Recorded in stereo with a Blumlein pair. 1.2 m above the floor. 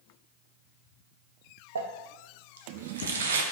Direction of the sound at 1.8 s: 70° right.